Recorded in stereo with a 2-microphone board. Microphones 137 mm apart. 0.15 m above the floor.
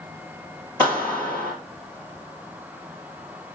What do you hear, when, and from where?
0.8 s a clap: 10° left (ahead or behind), 3.5 m